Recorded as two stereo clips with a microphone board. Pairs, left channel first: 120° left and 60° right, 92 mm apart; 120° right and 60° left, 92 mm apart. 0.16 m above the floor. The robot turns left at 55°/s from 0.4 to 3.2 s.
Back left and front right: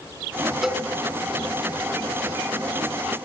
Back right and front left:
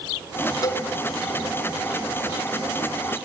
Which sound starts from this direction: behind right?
A cowbell, at 0.6 s.